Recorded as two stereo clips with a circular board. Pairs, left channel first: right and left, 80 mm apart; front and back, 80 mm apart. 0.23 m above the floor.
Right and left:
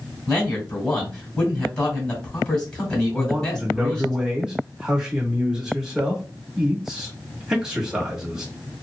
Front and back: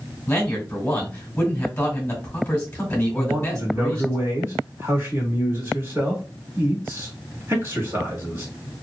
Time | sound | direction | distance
0.3 | a man speaking | 30° right | 1.2 m
3.1 | a man speaking | 165° left | 1.1 m